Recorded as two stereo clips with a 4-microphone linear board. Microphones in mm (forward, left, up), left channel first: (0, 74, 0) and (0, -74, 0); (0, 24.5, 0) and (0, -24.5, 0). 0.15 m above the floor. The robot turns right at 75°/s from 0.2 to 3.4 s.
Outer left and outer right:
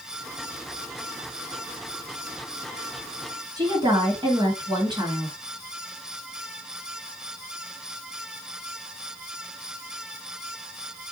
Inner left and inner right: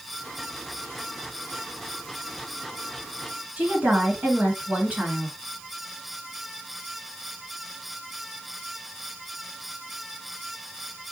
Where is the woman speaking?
30° right (ahead or behind), 1.9 m.